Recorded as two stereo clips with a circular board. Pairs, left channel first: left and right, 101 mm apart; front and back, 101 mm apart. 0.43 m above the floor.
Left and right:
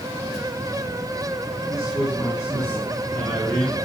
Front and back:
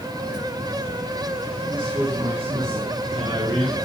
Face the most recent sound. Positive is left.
turn(degrees=160)